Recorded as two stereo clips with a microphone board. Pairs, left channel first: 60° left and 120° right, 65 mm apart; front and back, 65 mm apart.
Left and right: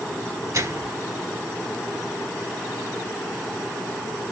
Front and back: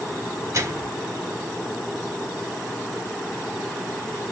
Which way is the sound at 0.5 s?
145° right.